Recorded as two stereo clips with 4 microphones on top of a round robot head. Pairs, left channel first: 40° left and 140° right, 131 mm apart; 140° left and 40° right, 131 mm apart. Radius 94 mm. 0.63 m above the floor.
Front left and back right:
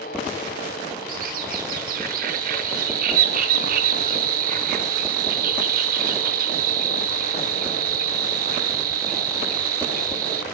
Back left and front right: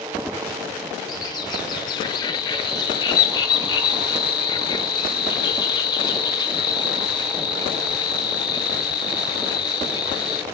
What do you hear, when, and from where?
1.1 s a bird: 160° right, 0.7 m